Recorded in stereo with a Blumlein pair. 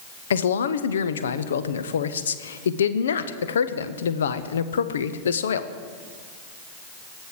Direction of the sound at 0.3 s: 65° left.